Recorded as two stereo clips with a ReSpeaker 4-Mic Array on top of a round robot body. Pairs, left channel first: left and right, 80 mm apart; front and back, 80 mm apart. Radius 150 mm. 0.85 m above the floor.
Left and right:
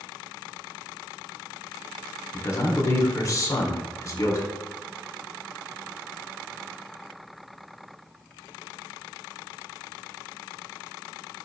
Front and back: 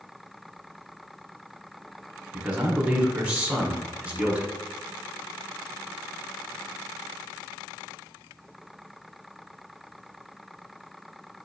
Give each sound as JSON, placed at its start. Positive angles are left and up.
{"t": 2.3, "sound": "a man speaking", "azimuth_deg": 110, "distance_m": 1.0}